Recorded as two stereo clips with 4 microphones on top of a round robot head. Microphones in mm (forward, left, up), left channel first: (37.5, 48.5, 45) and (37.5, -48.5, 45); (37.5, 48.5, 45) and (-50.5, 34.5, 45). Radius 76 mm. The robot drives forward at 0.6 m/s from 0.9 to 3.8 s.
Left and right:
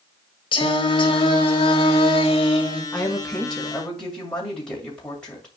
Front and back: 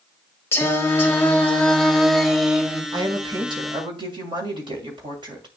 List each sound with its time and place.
0.5 s singing: 70° left, 1.9 m; by 2.8 s 110° left, 1.9 m
2.9 s a woman speaking: 170° left, 1.7 m